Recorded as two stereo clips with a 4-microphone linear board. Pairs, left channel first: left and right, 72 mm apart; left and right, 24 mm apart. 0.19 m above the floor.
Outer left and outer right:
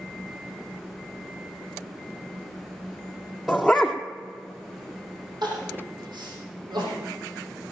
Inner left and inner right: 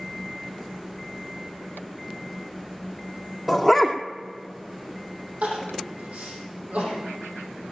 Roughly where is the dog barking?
Centre.